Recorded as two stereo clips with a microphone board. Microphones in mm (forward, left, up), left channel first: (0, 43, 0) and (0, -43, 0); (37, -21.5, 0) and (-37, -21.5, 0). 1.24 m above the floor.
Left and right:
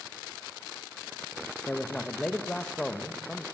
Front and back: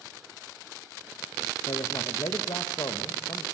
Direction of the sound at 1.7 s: 10° left.